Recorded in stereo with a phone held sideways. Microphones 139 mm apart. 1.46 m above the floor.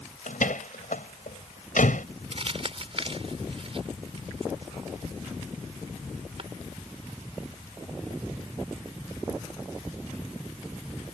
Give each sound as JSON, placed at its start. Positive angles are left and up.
{"t": 0.3, "sound": "a door slam", "side_deg": 85}
{"t": 2.3, "sound": "crumpling", "side_deg": -45}